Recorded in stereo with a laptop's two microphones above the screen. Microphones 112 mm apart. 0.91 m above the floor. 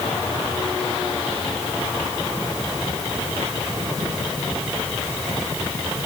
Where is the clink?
No clink in this recording.